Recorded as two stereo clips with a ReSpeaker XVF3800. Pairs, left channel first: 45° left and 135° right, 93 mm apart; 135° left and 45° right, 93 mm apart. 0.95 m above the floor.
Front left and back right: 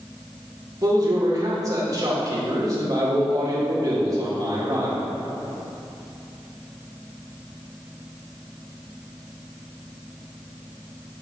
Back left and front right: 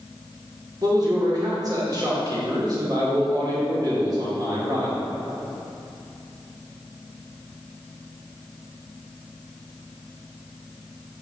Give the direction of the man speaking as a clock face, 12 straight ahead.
3 o'clock.